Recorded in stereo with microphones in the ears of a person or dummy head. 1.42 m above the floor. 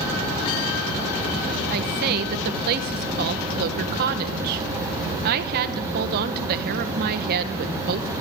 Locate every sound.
1.7 s a woman speaking: 50° right (ahead or behind), 1.3 m